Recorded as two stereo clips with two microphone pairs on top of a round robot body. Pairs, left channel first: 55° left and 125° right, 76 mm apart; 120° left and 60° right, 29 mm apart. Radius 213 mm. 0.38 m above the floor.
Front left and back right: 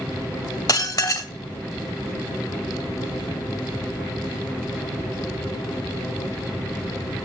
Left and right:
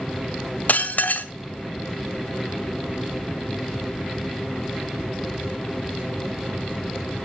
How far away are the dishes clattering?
About 1.4 m.